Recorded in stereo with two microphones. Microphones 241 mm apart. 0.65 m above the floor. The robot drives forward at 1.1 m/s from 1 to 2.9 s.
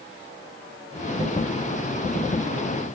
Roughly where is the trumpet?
No trumpet in this recording.